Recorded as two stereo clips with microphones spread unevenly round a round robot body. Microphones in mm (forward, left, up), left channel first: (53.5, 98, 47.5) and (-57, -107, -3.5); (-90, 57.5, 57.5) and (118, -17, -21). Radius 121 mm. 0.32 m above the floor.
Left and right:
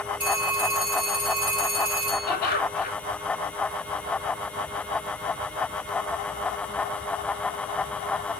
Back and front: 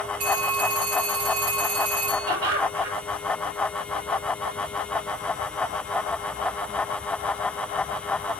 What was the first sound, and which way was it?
A phone ringing, 35° right.